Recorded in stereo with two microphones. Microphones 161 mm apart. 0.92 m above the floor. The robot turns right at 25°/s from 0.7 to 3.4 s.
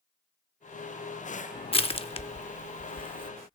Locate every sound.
1.7 s crushing: 35° left (ahead or behind), 0.6 m; by 3.3 s 30° left (ahead or behind), 0.6 m